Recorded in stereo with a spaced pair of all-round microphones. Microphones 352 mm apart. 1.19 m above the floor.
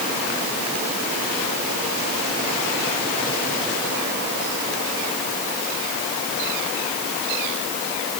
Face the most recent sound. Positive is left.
No sound to turn to.